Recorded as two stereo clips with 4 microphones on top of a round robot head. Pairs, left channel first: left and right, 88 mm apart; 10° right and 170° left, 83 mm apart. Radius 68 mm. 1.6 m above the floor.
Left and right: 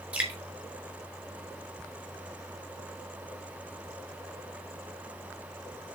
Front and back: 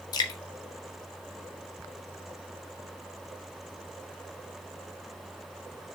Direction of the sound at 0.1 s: 15° right.